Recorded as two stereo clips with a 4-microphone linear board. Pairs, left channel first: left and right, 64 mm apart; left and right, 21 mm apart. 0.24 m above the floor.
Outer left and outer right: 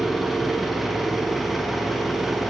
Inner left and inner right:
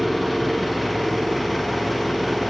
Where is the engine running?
Centre (ahead or behind), 0.7 m.